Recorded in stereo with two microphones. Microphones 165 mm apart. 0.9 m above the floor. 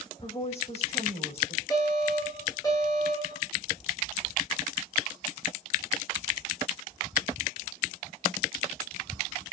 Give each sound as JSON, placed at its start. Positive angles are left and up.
{"t": 0.2, "sound": "a woman speaking", "side_deg": 40, "distance_m": 3.5}
{"t": 1.7, "sound": "an alarm", "side_deg": 25, "distance_m": 9.0}